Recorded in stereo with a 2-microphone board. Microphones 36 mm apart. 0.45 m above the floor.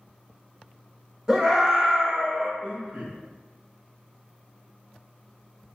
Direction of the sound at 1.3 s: 15° right (ahead or behind).